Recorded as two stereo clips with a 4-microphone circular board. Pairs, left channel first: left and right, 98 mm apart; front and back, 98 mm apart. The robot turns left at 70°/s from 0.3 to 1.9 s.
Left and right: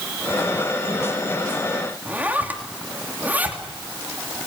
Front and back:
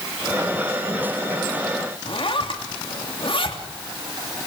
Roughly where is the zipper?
Ahead.